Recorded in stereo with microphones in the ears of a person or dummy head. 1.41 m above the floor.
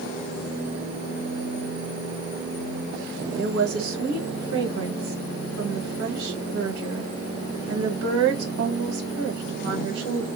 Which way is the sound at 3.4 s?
70° right (ahead or behind).